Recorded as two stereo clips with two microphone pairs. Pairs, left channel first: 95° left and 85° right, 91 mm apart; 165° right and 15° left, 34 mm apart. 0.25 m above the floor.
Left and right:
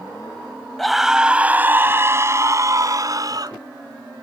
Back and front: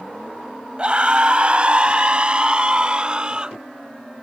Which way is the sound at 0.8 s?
10° left.